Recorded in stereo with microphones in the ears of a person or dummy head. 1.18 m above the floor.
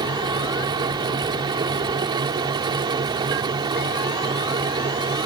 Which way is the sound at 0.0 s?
25° right (ahead or behind).